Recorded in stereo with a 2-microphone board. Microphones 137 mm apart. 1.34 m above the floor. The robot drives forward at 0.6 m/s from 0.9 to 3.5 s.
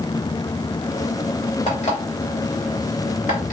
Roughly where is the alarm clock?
Left.